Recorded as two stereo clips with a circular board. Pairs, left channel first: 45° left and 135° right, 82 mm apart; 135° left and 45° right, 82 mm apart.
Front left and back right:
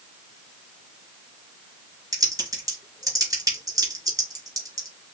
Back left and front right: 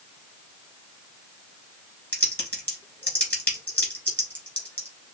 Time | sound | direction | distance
2.1 | typing on a keyboard | 165° right | 1.8 m